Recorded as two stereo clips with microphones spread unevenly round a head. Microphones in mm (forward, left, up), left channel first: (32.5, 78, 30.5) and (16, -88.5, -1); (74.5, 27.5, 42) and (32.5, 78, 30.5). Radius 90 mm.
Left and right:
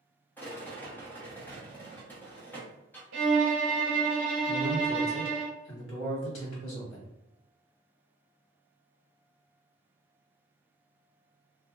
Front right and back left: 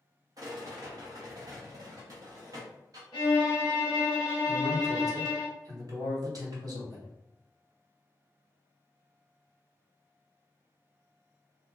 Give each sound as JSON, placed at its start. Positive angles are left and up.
{"t": 0.4, "sound": "a rattle", "azimuth_deg": 165, "distance_m": 0.8}
{"t": 3.1, "sound": "a violin", "azimuth_deg": -100, "distance_m": 0.9}
{"t": 4.5, "sound": "a man speaking", "azimuth_deg": 110, "distance_m": 1.5}